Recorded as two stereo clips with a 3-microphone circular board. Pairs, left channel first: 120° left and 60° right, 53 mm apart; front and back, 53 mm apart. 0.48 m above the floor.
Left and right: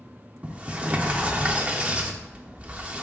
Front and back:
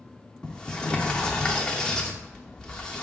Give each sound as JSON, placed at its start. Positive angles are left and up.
{"t": 0.4, "sound": "a sliding door", "azimuth_deg": -55, "distance_m": 0.5}